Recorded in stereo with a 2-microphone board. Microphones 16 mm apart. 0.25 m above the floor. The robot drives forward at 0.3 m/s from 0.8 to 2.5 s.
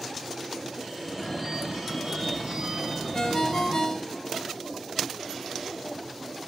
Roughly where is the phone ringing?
Right.